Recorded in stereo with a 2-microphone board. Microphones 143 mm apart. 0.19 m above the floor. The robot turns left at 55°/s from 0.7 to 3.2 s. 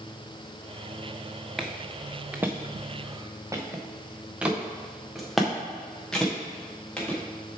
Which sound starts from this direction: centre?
Footsteps, at 1.6 s.